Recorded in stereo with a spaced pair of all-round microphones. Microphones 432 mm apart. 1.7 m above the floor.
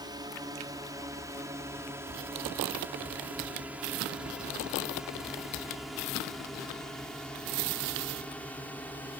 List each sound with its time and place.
0.0 s a drone: 10° right (ahead or behind); by 9.2 s 5° left (ahead or behind)